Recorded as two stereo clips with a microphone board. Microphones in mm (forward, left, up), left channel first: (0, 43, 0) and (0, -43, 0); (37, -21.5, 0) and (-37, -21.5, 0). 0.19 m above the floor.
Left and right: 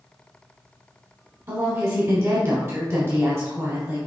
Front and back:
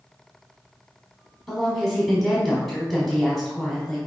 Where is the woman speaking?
85° right, 1.1 m.